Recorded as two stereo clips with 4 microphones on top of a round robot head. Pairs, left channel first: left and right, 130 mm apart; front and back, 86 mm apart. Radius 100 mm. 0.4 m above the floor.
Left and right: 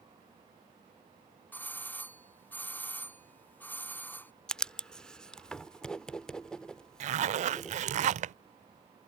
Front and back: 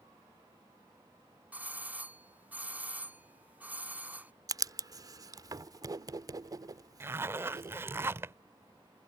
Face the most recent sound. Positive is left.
turn(degrees=-115)